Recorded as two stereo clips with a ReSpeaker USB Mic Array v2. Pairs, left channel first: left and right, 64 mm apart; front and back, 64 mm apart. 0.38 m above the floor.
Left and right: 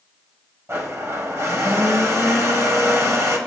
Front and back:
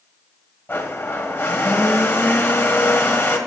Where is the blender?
50° right, 1.5 m.